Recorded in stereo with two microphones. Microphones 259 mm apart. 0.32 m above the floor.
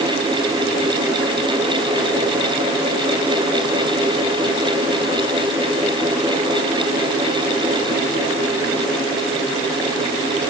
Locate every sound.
Only background noise.